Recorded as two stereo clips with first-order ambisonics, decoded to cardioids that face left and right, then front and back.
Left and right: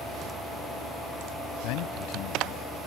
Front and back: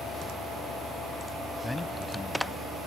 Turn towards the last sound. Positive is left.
turn(degrees=85)